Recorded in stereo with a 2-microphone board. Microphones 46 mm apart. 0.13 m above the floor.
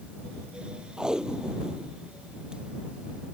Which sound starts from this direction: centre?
Tape being pulled, at 1.0 s.